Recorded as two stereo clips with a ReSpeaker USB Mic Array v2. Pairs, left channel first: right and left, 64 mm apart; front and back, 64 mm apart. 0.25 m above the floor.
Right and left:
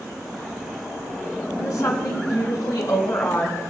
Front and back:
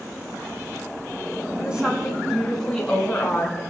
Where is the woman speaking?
105° right, 2 m; by 3.6 s 60° right, 2.5 m.